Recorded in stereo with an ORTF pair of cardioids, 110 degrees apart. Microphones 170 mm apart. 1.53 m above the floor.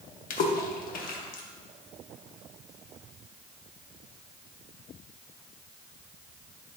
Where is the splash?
55° left, 1.5 m.